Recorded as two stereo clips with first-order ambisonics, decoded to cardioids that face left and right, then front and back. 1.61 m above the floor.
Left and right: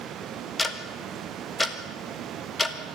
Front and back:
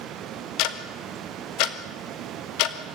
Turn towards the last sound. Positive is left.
turn(degrees=10)